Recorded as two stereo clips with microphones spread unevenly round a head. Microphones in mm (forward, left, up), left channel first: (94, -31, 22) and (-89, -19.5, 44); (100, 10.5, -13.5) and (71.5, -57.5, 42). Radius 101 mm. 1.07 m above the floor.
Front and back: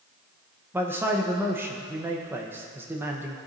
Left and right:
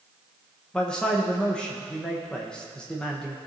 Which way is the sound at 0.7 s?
95° left.